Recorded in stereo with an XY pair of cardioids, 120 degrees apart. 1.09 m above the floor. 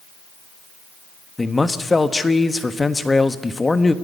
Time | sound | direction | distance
1.4 | a man speaking | 15° left | 1.3 m